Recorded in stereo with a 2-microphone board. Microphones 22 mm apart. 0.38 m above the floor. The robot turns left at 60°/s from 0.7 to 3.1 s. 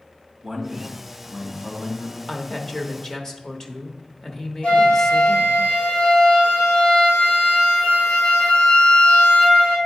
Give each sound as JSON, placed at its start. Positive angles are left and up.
{"t": 0.4, "sound": "a man speaking", "azimuth_deg": -165, "distance_m": 2.0}
{"t": 2.3, "sound": "a woman speaking", "side_deg": 15, "distance_m": 0.8}
{"t": 4.6, "sound": "a flute", "side_deg": 85, "distance_m": 3.0}